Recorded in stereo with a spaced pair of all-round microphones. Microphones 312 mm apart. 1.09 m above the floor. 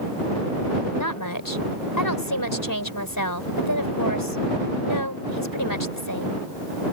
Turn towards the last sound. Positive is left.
turn(degrees=85)